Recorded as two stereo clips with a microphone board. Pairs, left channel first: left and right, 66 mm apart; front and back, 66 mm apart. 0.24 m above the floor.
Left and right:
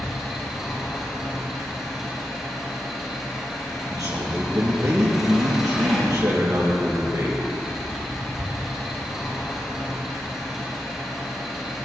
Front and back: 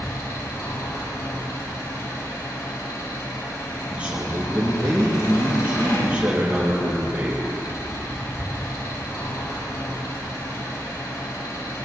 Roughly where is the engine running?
Ahead.